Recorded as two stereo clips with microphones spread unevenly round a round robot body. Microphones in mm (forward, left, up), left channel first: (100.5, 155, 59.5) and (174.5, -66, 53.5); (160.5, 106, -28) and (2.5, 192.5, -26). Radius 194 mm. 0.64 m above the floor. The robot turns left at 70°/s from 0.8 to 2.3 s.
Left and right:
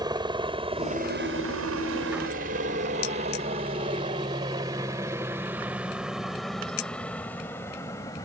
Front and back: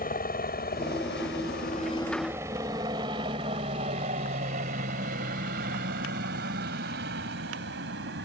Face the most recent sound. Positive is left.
turn(degrees=-170)